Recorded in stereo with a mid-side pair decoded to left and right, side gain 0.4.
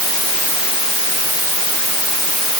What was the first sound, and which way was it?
Only background noise.